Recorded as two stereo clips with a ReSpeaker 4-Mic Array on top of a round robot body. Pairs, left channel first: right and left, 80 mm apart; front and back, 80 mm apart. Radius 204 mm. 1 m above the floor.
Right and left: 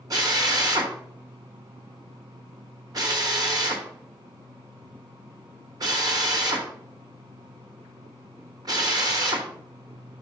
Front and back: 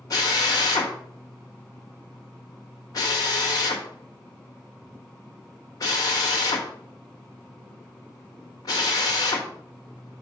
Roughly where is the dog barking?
No dog barking in this recording.